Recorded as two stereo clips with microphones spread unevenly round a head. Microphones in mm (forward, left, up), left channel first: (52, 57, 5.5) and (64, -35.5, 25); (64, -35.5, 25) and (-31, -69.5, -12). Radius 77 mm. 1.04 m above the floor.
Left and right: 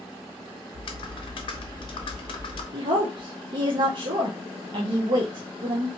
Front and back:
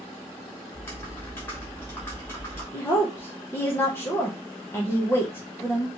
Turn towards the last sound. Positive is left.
turn(degrees=-55)